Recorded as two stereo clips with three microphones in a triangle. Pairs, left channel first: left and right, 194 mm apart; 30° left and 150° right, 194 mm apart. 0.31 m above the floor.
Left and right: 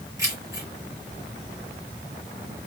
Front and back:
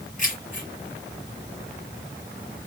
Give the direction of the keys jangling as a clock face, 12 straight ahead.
1 o'clock.